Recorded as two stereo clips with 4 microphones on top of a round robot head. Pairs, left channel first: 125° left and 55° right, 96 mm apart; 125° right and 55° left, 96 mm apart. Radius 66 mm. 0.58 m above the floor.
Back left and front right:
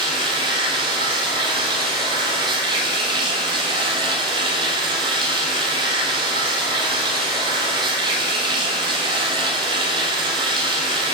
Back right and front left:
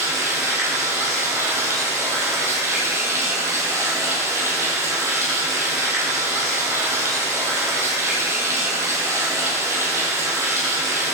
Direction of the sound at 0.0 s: 10° right.